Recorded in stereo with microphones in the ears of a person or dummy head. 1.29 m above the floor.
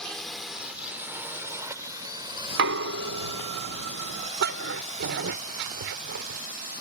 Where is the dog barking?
55° right (ahead or behind).